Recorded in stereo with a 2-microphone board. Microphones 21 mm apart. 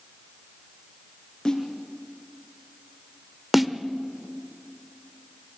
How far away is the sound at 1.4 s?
About 4 m.